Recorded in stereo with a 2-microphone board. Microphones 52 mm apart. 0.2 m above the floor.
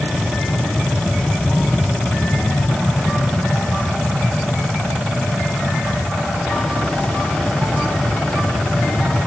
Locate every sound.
0.0 s an aircraft: 5° left (ahead or behind); by 9.3 s 20° left (ahead or behind)